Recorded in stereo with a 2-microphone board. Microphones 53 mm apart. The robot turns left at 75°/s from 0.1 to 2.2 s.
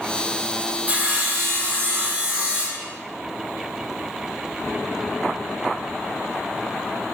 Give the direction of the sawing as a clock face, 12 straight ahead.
1 o'clock.